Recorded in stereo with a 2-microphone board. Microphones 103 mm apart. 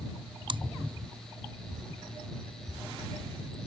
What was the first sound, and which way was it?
Chewing, 50° right (ahead or behind).